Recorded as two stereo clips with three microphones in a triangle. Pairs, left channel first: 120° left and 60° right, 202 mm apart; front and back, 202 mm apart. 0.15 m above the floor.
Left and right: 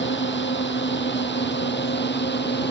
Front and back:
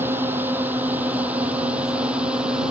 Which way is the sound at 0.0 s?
100° left.